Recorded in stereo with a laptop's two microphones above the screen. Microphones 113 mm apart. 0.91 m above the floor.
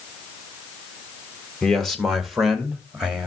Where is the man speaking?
5° left (ahead or behind), 1.5 m; by 3.3 s 5° right (ahead or behind), 2.5 m.